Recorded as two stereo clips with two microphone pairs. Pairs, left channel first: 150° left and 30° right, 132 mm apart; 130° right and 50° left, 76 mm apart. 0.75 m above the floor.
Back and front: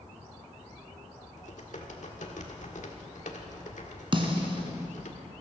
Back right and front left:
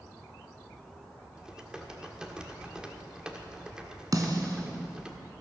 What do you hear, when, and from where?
1.4 s typing on a keyboard: 130° left, 1.5 m
4.1 s a snare drum: 20° left, 1.7 m